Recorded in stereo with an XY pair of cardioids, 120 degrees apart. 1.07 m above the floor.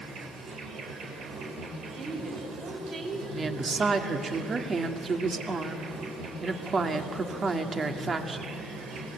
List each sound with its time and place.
0.0 s an insect: 65° right, 4.5 m
1.9 s a woman speaking: 50° right, 6.5 m
3.3 s a woman speaking: 35° right, 2 m